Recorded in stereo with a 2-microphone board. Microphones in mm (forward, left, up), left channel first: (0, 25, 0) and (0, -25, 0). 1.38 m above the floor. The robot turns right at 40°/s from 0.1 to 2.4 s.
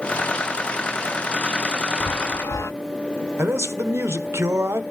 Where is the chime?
55° left (ahead or behind), 0.5 m; by 2.7 s 65° left (ahead or behind), 0.5 m.